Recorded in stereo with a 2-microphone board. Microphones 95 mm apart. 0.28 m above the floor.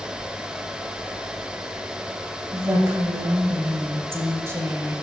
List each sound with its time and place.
2.5 s a woman speaking: 25° right (ahead or behind), 1.0 m